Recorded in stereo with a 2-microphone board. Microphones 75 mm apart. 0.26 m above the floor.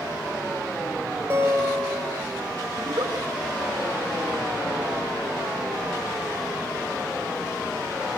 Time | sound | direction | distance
1.3 | a guitar | 30° right (ahead or behind) | 5 m
2.8 | a giggle | 65° right (ahead or behind) | 3.5 m